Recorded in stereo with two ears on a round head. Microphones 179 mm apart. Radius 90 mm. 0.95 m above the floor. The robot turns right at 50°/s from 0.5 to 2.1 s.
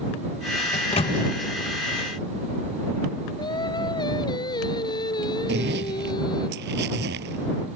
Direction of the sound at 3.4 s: 25° left (ahead or behind).